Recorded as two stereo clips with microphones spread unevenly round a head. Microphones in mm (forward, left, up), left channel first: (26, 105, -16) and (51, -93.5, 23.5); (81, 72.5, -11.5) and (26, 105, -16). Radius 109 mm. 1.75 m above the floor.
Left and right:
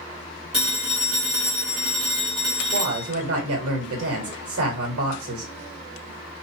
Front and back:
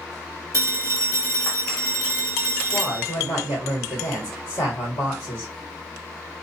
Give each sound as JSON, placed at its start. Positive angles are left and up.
{"t": 0.5, "sound": "a phone ringing", "azimuth_deg": -160, "distance_m": 1.3}
{"t": 2.7, "sound": "a woman speaking", "azimuth_deg": -90, "distance_m": 1.4}